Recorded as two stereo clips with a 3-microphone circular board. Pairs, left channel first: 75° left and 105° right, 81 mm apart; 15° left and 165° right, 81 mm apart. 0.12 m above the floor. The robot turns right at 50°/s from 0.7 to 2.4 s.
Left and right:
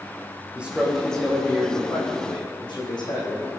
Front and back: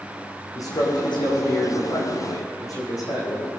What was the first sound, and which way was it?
A man speaking, 30° right.